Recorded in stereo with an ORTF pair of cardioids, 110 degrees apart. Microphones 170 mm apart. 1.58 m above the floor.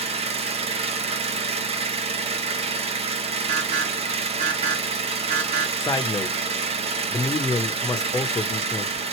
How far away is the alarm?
About 1.9 m.